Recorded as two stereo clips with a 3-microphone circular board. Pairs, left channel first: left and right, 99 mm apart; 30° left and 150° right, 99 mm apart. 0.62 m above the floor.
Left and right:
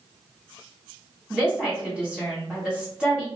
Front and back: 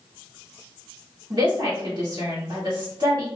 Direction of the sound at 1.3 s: 170° right.